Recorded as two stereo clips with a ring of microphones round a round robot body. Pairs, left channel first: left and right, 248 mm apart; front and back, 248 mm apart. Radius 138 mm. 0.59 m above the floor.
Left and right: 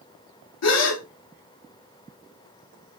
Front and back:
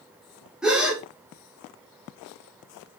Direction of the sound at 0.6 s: 95° left.